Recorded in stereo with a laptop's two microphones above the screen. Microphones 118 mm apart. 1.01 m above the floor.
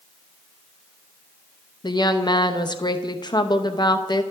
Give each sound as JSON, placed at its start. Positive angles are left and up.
{"t": 1.8, "sound": "a woman speaking", "side_deg": 35, "distance_m": 0.8}